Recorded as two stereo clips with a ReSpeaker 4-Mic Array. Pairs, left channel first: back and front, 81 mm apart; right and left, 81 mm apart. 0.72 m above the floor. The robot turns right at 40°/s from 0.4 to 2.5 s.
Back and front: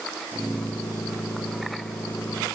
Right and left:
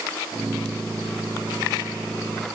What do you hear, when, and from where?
Only background noise.